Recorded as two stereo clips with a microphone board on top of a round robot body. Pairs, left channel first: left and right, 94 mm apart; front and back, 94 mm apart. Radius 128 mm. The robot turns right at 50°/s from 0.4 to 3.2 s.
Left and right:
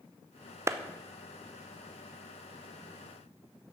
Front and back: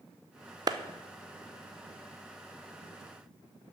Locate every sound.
0.7 s a clap: 145° right, 0.8 m; by 0.8 s 140° right, 0.8 m